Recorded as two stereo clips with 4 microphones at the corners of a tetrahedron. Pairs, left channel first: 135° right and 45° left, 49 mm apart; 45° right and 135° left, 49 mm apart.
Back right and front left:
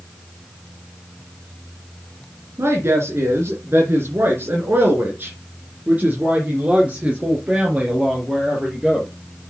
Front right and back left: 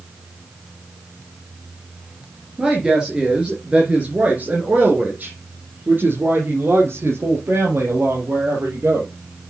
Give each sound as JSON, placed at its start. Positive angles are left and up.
{"t": 2.6, "sound": "a woman speaking", "azimuth_deg": 55, "distance_m": 2.5}